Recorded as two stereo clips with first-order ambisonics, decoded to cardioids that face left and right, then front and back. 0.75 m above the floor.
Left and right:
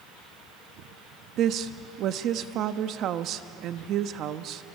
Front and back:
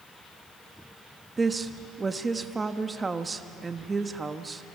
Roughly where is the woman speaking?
Right.